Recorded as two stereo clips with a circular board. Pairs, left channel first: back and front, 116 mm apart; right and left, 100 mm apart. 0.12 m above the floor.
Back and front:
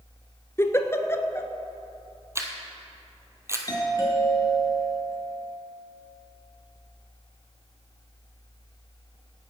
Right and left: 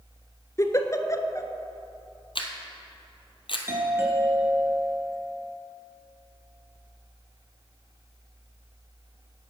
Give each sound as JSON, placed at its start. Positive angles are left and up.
{"t": 0.6, "sound": "a giggle", "azimuth_deg": -125, "distance_m": 0.8}
{"t": 2.4, "sound": "a camera shutter", "azimuth_deg": -65, "distance_m": 1.4}
{"t": 3.7, "sound": "a doorbell", "azimuth_deg": 140, "distance_m": 2.5}